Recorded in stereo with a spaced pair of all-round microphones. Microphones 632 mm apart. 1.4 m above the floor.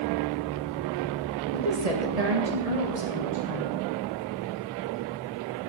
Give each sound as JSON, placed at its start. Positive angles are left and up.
{"t": 1.5, "sound": "a woman speaking", "side_deg": -80, "distance_m": 1.9}